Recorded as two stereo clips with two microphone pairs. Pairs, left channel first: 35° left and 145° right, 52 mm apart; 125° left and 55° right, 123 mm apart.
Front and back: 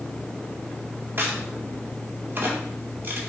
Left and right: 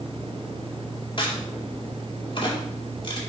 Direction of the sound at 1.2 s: 165° left.